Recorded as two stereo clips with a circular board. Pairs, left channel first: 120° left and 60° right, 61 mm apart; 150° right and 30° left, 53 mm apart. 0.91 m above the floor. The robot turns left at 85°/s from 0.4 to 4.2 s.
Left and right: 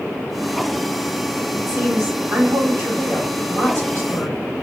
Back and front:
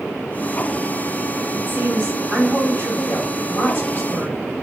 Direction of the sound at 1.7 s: 5° right.